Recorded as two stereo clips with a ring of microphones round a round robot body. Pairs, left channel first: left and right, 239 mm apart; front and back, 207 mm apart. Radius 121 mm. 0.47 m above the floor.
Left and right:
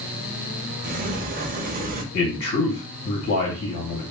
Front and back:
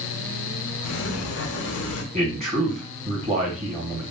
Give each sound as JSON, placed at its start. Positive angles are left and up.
{"t": 0.8, "sound": "a sliding door", "azimuth_deg": -30, "distance_m": 0.5}
{"t": 2.1, "sound": "a man speaking", "azimuth_deg": 125, "distance_m": 1.9}